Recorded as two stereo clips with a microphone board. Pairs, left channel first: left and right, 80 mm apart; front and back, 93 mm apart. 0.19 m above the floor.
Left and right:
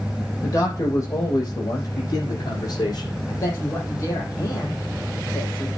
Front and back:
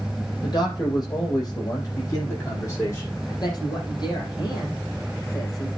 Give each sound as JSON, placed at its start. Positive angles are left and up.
{"t": 0.4, "sound": "a man speaking", "azimuth_deg": 40, "distance_m": 6.5}
{"t": 3.3, "sound": "a man speaking", "azimuth_deg": 40, "distance_m": 6.0}